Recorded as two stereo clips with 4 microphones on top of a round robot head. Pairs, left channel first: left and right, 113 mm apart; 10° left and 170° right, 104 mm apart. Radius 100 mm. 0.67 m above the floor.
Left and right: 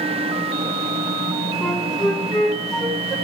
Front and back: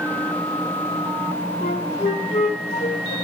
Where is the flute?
Straight ahead, 2.5 m.